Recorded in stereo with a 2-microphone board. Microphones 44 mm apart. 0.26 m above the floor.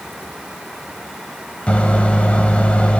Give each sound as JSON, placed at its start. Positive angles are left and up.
{"t": 1.7, "sound": "a microwave", "side_deg": 30, "distance_m": 0.7}